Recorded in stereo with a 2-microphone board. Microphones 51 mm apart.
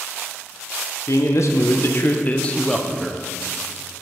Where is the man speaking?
65° left (ahead or behind), 1.0 m; by 3.2 s 10° right (ahead or behind), 0.8 m.